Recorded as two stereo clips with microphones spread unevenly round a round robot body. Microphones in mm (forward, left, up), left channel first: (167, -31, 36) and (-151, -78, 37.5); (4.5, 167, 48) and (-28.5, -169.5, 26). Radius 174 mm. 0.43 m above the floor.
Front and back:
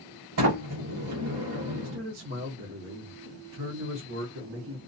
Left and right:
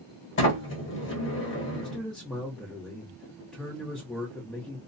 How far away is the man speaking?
About 1.0 m.